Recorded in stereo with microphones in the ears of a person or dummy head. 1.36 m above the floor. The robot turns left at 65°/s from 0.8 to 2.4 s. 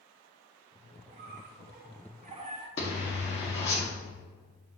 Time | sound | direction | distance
1.1 | a squeak | 45° right | 1.0 m
2.8 | a zipper | 35° left (ahead or behind) | 1.9 m